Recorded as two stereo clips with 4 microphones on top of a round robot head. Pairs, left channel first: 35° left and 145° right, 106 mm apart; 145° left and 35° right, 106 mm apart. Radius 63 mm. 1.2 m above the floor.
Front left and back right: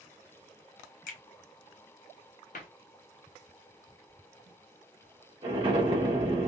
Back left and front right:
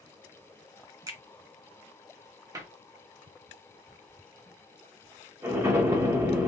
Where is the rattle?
I don't hear a rattle.